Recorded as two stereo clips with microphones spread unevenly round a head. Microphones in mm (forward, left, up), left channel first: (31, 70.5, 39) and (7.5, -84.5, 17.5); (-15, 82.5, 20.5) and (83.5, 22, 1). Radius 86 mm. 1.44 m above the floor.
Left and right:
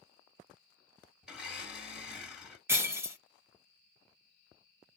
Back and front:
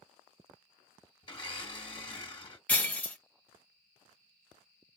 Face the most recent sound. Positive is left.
turn(degrees=-175)